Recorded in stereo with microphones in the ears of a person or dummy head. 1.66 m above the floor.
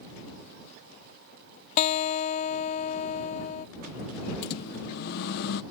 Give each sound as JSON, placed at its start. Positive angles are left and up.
{"t": 1.8, "sound": "a guitar", "side_deg": 35}
{"t": 4.4, "sound": "a microwave", "side_deg": 50}